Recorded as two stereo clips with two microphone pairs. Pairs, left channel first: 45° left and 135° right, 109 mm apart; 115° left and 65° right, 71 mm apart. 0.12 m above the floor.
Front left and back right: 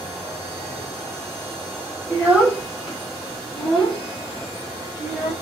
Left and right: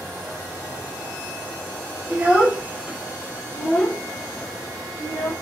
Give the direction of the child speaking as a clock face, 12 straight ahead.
3 o'clock.